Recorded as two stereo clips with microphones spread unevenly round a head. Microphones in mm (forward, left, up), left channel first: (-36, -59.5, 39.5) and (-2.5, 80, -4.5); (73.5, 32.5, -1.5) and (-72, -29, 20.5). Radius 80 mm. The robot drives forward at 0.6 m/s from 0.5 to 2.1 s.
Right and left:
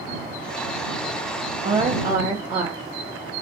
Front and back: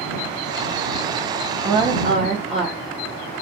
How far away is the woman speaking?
About 0.5 m.